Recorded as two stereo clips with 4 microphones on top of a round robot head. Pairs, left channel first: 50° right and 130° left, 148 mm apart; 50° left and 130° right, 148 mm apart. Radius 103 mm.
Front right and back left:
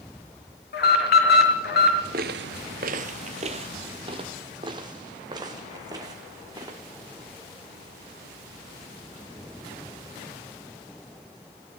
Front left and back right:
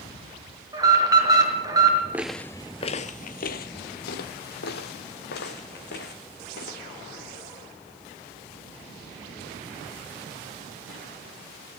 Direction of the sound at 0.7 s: 65° right.